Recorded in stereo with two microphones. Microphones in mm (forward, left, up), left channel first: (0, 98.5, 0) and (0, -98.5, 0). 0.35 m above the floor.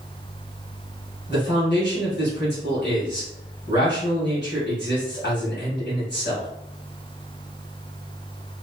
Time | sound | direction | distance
1.3 | a man speaking | 60° left (ahead or behind) | 1.9 m